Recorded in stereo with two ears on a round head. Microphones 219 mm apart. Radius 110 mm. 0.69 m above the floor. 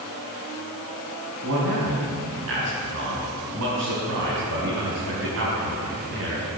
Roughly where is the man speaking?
Right.